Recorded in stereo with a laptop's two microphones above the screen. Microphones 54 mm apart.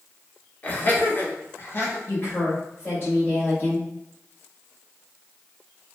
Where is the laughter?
30° left (ahead or behind), 1.0 m; by 2.0 s 40° left (ahead or behind), 0.8 m.